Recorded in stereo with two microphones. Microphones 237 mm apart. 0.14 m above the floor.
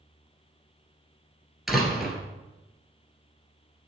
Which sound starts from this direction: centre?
A door slam, at 1.7 s.